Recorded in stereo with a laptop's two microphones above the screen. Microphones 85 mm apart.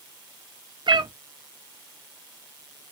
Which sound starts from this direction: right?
A cat meowing, at 0.9 s.